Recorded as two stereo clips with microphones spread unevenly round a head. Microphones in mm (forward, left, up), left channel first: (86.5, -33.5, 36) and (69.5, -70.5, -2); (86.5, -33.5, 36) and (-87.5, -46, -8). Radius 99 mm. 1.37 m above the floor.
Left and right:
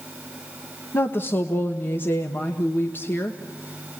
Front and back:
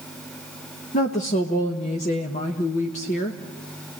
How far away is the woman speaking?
About 1.0 m.